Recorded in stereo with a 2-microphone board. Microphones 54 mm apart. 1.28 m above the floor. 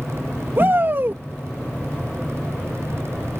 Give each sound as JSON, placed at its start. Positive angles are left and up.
{"t": 0.6, "sound": "a shout", "side_deg": -45}